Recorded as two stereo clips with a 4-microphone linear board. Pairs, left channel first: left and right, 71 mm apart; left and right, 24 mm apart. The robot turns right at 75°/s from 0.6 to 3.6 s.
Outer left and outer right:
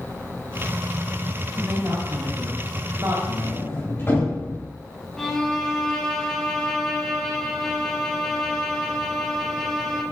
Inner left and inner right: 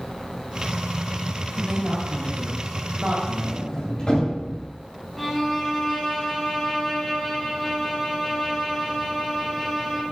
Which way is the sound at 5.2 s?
5° left (ahead or behind).